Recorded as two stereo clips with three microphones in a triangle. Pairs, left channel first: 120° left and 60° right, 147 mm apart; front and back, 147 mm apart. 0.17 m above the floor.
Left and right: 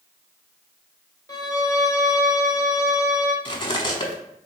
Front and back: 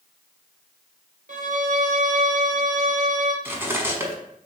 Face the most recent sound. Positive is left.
turn(degrees=120)